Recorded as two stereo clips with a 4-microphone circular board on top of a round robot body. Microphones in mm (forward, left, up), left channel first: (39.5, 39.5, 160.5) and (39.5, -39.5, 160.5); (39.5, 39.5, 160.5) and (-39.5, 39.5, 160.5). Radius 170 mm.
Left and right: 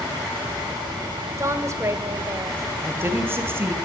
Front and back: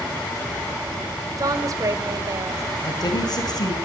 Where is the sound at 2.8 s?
30° right, 3 m.